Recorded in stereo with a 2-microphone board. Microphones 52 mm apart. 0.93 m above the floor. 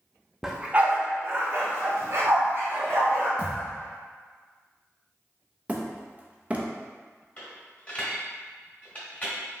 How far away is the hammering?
About 0.6 m.